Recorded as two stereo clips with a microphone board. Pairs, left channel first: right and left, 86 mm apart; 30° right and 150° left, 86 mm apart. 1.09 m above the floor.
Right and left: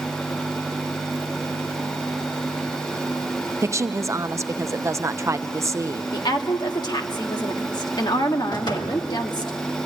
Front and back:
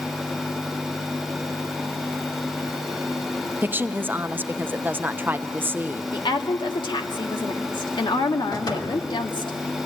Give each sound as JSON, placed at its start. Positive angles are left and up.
{"t": 3.6, "sound": "a woman speaking", "azimuth_deg": 100, "distance_m": 0.7}
{"t": 6.1, "sound": "a woman speaking", "azimuth_deg": -55, "distance_m": 1.8}
{"t": 8.5, "sound": "a door slam", "azimuth_deg": -65, "distance_m": 2.5}